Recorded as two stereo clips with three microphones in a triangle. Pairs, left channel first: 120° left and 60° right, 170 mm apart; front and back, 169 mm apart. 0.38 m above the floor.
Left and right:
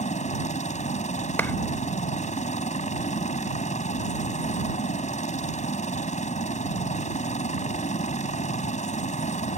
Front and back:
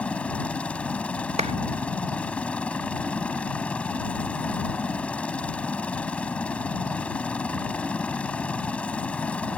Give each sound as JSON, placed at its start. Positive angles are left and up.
{"t": 0.0, "sound": "a helicopter", "azimuth_deg": 80}
{"t": 1.4, "sound": "a clap", "azimuth_deg": -170}